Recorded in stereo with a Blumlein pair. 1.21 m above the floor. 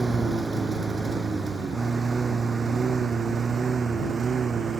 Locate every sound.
0.0 s a lawn mower: 10° right; by 4.8 s 20° right